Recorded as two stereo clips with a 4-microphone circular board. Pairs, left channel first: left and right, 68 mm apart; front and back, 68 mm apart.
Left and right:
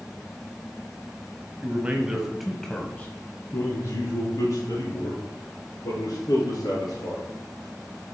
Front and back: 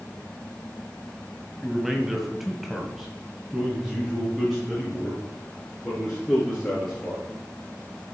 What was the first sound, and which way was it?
A man speaking, 105° right.